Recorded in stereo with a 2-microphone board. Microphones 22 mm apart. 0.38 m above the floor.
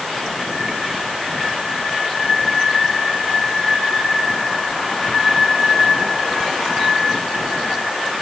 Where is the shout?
No shout in this recording.